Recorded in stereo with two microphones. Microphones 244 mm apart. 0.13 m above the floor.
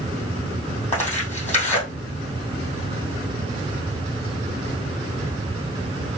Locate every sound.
0.9 s tearing paper: 30° left (ahead or behind), 3.5 m